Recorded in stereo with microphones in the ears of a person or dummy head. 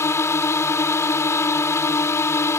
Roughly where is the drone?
Centre.